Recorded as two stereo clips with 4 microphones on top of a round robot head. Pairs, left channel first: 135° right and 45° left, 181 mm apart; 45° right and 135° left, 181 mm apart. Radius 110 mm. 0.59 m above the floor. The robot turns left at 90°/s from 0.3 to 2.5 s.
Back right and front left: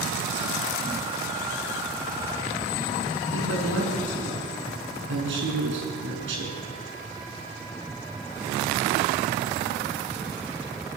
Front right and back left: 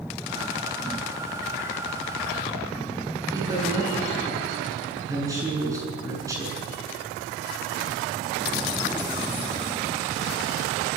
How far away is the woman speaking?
About 7.5 m.